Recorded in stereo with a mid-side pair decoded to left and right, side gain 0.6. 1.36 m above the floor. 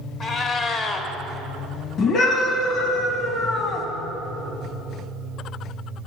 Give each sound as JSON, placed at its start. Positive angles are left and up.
{"t": 0.2, "sound": "a cat meowing", "azimuth_deg": 40, "distance_m": 1.8}
{"t": 2.0, "sound": "a scream", "azimuth_deg": 50, "distance_m": 2.5}